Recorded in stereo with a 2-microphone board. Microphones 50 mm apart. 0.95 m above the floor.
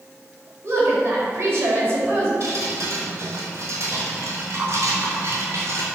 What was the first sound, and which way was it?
A woman speaking, 45° right (ahead or behind).